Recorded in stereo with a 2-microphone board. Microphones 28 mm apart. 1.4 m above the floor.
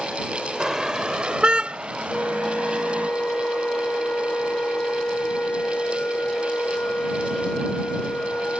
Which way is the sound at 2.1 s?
80° left.